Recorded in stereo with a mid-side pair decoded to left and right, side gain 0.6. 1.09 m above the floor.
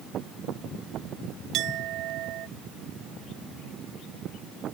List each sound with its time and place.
1.5 s a clink: 65° right